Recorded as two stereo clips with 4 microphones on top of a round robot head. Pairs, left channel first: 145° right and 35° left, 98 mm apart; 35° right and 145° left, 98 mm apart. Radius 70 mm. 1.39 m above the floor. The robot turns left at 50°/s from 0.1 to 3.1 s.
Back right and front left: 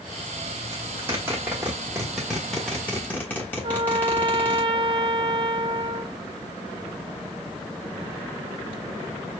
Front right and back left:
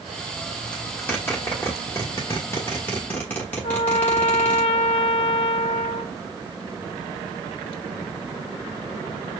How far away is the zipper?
About 1.0 m.